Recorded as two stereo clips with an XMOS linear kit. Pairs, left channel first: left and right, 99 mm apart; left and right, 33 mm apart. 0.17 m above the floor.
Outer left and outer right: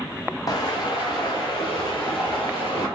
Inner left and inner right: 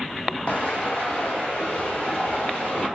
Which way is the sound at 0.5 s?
40° left (ahead or behind).